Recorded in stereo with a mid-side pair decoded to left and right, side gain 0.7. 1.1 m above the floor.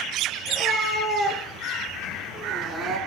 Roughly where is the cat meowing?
Ahead.